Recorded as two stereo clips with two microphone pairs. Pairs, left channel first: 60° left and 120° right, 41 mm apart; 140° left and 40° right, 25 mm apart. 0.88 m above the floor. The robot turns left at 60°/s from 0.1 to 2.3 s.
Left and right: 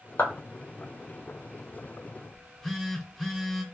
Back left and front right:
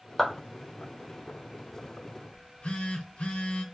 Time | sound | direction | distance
0.2 | a clap | 60° left | 0.8 m
2.3 | a phone buzzing | 145° left | 0.7 m